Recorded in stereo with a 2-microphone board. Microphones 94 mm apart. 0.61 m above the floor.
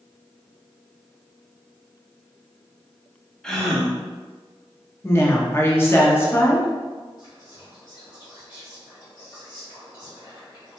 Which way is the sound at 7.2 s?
45° left (ahead or behind).